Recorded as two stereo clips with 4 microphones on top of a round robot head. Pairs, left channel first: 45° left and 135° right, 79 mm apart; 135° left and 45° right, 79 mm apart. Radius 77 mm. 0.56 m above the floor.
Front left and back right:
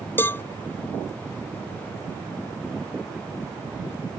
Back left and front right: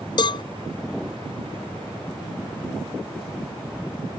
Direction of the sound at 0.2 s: 110° left.